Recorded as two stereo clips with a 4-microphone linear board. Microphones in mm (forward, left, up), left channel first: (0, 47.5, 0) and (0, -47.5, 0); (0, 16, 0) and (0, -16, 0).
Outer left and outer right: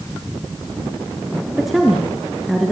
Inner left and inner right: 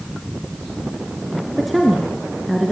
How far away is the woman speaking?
About 3.5 m.